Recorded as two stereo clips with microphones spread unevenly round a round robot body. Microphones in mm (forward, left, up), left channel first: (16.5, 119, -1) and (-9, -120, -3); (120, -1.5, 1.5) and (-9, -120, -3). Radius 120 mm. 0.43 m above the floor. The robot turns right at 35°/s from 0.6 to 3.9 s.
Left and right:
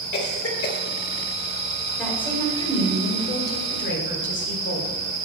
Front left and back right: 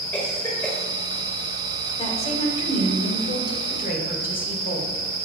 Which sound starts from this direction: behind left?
A cough, at 0.1 s.